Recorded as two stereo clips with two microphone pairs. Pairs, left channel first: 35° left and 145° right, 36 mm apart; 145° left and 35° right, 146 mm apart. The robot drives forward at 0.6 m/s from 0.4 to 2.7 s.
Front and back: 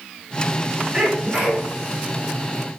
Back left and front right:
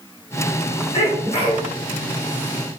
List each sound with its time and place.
0.9 s a sneeze: 165° left, 1.2 m; by 1.7 s 170° left, 1.5 m